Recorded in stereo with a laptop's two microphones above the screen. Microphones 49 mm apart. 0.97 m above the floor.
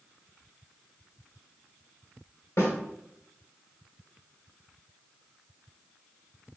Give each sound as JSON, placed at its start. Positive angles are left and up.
{"t": 2.6, "sound": "a snare drum", "side_deg": 80, "distance_m": 2.0}